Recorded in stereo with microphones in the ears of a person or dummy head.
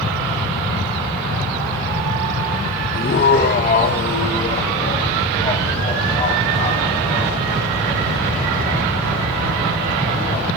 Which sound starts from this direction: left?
Laughter, at 2.9 s.